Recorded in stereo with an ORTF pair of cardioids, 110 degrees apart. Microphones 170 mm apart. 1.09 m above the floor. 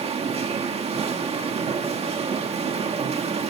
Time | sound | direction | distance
0.0 | a machine running | 40° right | 2 m